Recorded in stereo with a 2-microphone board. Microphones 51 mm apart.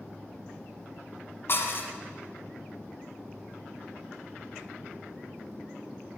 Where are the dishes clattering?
50° left (ahead or behind), 1.1 m.